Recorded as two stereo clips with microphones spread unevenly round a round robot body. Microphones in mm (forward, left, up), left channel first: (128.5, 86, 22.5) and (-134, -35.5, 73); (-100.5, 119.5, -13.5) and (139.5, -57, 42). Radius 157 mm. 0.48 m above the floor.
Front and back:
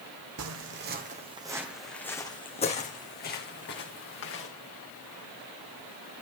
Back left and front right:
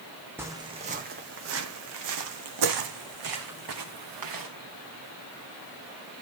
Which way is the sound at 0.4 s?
115° right.